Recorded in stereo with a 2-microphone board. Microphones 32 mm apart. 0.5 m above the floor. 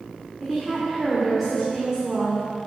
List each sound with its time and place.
0.4 s a woman speaking: centre (ahead or behind), 1.6 m